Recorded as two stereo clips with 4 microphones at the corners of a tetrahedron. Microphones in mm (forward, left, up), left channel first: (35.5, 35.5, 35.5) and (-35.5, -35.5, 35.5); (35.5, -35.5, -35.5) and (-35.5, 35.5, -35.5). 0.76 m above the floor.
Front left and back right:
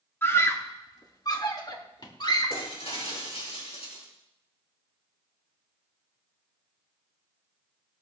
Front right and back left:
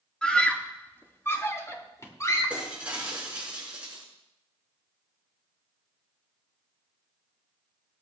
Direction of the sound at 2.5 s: 60° left.